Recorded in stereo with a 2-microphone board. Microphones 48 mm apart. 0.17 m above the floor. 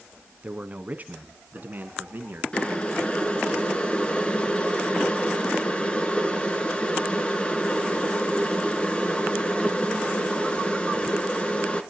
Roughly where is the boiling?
Left.